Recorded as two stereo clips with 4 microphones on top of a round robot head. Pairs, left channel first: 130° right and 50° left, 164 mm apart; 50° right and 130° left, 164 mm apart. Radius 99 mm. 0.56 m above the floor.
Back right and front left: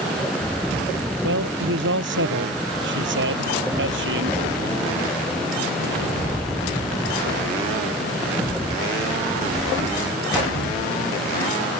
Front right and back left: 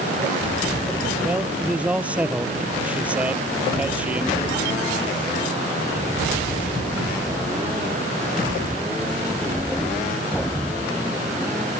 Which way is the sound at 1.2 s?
45° left.